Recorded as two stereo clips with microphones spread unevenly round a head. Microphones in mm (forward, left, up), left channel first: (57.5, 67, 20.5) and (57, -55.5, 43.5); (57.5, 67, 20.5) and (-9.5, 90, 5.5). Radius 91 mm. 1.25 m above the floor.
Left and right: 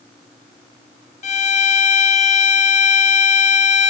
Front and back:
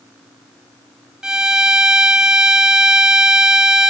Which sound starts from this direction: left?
A violin, at 1.2 s.